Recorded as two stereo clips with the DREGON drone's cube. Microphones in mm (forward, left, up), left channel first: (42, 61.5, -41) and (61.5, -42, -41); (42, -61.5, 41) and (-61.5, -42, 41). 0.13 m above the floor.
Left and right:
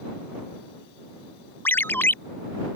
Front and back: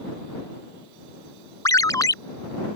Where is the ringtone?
35° left.